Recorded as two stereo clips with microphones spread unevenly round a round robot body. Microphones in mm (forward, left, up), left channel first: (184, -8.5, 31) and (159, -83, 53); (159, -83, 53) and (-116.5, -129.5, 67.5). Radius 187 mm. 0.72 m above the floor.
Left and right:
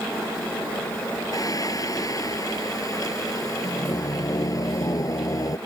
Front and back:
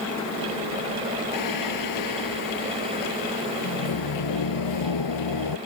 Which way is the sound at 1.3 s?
25° left.